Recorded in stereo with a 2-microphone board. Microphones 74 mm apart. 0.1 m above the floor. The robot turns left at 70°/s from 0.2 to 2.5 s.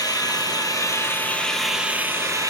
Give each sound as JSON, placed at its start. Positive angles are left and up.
{"t": 0.0, "sound": "an engine running", "azimuth_deg": 100, "distance_m": 1.3}